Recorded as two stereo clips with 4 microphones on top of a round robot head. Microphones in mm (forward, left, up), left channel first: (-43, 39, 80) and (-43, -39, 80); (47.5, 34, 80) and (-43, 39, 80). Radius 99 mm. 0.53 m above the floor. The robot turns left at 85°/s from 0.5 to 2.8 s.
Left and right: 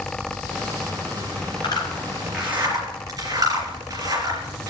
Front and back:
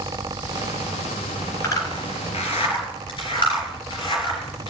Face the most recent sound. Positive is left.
turn(degrees=-40)